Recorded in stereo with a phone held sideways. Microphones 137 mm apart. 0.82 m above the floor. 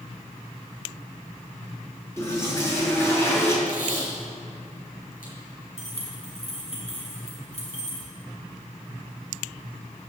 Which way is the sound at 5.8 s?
50° left (ahead or behind).